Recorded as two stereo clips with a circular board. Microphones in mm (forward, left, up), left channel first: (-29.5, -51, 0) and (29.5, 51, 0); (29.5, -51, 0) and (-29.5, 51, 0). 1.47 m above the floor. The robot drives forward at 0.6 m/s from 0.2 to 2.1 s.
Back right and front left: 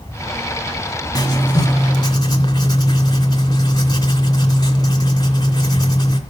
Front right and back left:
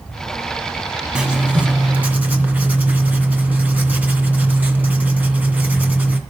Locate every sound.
1.1 s writing: 160° right, 1.9 m; by 6.2 s 165° right, 2.5 m